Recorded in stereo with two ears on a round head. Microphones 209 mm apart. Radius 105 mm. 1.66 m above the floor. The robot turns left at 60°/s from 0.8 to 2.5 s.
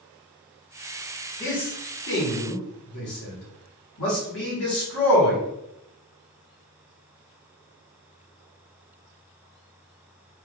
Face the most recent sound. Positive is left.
turn(degrees=70)  # may be behind; listen again after turning